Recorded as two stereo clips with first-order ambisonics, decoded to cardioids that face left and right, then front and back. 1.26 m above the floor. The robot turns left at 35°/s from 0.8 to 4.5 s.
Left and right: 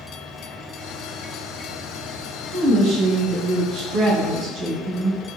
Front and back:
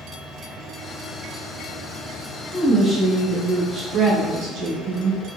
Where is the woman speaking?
70° right, 1.1 m; by 5.2 s 140° right, 1.1 m.